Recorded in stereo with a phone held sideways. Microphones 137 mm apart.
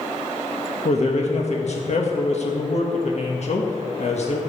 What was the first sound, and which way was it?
A man speaking, 55° left (ahead or behind).